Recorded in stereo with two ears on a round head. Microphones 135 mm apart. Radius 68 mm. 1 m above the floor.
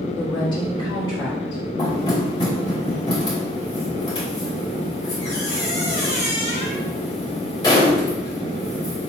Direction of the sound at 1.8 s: 30° left (ahead or behind).